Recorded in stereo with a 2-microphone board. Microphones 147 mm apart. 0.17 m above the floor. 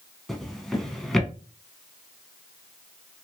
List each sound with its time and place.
0.3 s a drawer: centre (ahead or behind), 0.6 m